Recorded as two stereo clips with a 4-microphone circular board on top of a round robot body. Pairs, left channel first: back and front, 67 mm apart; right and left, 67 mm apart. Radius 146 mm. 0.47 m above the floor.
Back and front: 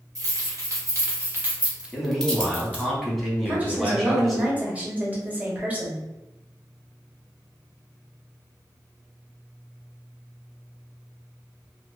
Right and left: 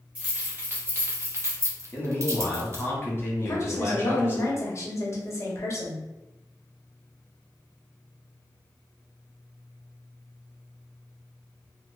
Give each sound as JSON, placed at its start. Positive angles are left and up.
{"t": 0.1, "sound": "keys jangling", "azimuth_deg": 25, "distance_m": 1.3}
{"t": 1.9, "sound": "a man speaking", "azimuth_deg": -90, "distance_m": 1.2}
{"t": 3.5, "sound": "a woman speaking", "azimuth_deg": -60, "distance_m": 1.1}